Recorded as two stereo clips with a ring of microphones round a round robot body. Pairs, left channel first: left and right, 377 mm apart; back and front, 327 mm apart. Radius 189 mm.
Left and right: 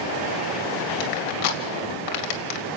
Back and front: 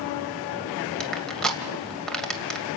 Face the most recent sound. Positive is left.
turn(degrees=90)